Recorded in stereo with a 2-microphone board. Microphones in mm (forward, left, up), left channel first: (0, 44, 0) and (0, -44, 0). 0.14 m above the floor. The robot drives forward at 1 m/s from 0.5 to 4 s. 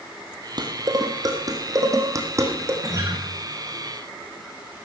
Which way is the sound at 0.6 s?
55° right (ahead or behind).